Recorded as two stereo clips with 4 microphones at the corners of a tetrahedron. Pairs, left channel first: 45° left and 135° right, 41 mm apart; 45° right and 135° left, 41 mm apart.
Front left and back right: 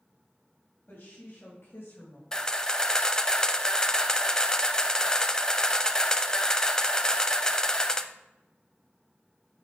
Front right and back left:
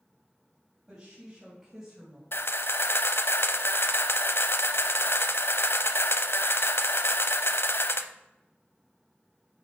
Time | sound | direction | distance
0.9 | a woman speaking | 75° left | 3 m
2.3 | a camera shutter | 25° right | 0.6 m